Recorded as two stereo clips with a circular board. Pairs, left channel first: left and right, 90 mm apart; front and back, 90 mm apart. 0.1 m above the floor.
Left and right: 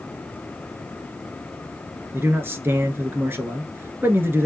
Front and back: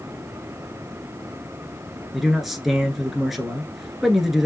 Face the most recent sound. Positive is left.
turn(degrees=-95)